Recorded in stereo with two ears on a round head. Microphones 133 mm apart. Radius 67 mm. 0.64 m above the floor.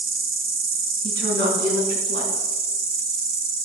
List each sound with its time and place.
0.0 s an insect: 65° right (ahead or behind), 1.2 m
1.0 s a woman speaking: 75° right (ahead or behind), 6 m